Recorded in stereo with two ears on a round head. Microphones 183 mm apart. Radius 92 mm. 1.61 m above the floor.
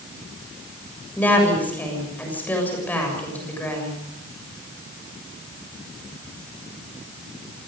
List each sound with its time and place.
1.2 s a woman speaking: 10° left (ahead or behind), 7 m